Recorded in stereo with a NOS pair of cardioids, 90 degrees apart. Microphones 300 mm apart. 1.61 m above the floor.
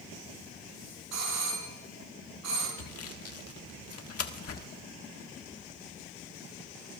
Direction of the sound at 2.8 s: 50° left.